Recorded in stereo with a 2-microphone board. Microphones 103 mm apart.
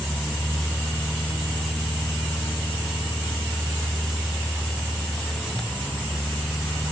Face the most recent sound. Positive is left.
No sound to turn to.